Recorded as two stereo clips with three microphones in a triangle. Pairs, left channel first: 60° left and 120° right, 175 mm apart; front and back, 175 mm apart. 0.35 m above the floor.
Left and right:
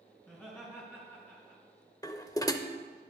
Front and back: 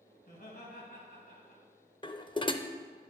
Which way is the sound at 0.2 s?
15° right.